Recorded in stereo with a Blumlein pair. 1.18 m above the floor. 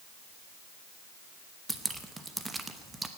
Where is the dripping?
10° right, 0.9 m.